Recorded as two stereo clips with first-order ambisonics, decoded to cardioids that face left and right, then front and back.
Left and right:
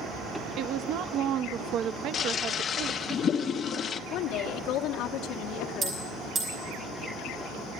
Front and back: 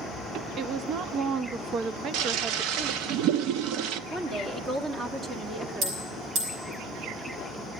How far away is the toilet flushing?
About 0.6 m.